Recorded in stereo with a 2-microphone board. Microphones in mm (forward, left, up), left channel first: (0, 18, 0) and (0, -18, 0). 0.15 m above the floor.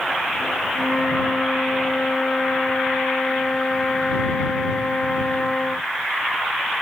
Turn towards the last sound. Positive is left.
turn(degrees=25)  # may be behind; listen again after turning